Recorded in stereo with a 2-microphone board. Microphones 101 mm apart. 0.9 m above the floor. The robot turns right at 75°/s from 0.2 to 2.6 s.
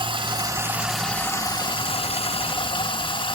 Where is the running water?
55° right, 0.7 m; by 3.4 s 125° left, 0.7 m.